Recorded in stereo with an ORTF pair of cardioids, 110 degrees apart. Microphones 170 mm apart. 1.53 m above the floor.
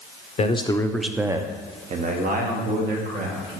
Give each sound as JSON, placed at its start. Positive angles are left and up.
{"t": 0.4, "sound": "a man speaking", "azimuth_deg": 40, "distance_m": 0.8}